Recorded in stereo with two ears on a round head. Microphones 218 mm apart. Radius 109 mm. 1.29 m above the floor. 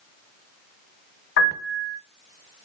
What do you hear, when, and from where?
1.4 s a piano: 50° left (ahead or behind), 6 m